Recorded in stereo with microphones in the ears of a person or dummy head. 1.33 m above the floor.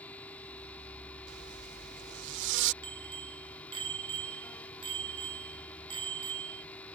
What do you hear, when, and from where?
0.0 s a fan: 5° left (ahead or behind)
1.3 s a zipper: 70° right (ahead or behind)
2.8 s a bicycle bell: 30° right (ahead or behind)